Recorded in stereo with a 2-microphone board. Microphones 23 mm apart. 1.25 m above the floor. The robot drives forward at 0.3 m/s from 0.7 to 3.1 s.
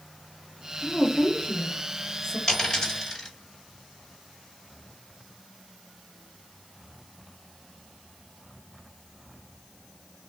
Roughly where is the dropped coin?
Left.